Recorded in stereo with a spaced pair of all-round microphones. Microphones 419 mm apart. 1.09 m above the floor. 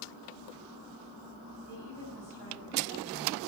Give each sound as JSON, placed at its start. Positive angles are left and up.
{"t": 1.7, "sound": "a woman speaking", "side_deg": 80, "distance_m": 6.5}